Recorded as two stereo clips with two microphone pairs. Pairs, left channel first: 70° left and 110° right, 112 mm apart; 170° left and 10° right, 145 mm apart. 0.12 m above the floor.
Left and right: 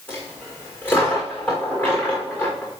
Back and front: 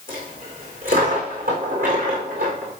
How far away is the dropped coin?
About 4.5 m.